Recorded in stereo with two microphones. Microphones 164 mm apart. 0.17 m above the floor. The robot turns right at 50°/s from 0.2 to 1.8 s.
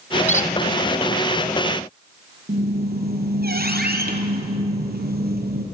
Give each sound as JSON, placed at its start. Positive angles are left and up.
{"t": 0.3, "sound": "a squeak", "side_deg": 45, "distance_m": 0.8}
{"t": 2.5, "sound": "a squeak", "side_deg": -70, "distance_m": 3.0}